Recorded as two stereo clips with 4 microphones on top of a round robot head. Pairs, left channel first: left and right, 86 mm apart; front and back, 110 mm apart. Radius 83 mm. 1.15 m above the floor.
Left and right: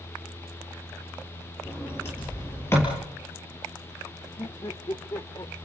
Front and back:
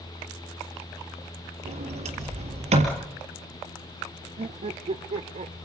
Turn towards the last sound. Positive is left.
turn(degrees=150)